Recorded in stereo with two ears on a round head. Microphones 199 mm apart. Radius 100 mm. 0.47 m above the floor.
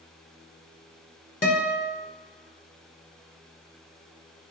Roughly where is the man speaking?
I don't hear a man speaking.